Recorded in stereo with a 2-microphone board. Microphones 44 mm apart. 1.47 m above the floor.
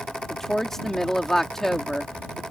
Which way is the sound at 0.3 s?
10° left (ahead or behind).